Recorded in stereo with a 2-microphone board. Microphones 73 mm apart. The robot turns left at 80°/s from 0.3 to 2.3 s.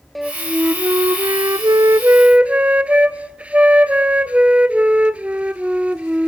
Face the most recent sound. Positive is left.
turn(degrees=-160)